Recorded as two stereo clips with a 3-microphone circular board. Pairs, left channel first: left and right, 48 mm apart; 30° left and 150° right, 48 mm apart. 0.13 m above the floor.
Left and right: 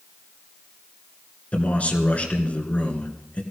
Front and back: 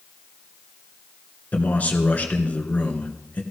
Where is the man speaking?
55° left, 2.0 m.